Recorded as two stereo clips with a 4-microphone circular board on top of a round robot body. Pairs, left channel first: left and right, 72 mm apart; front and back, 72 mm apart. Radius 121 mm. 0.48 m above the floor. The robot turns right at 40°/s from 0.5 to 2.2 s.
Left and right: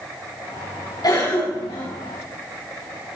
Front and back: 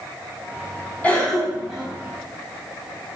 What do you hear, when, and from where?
1.0 s a cough: 70° left, 4.5 m; by 1.9 s 105° left, 4.5 m